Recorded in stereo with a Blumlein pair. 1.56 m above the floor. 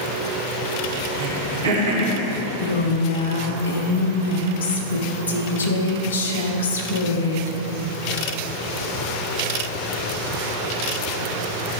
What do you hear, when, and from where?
1.2 s throat clearing: 65° right, 2.0 m
2.6 s a woman speaking: 65° left, 1.0 m